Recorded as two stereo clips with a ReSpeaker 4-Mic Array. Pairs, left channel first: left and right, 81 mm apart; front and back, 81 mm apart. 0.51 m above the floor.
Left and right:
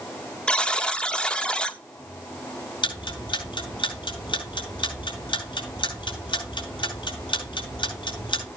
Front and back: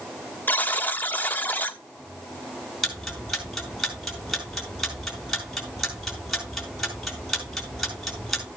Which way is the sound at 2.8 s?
90° left.